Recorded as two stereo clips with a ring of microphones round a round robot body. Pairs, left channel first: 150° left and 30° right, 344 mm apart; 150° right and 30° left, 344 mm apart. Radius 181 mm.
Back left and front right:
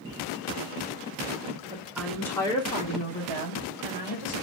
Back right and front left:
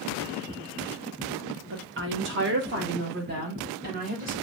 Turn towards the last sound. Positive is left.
turn(degrees=95)